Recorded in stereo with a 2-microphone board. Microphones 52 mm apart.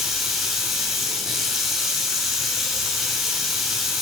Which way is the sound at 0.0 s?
5° right (ahead or behind).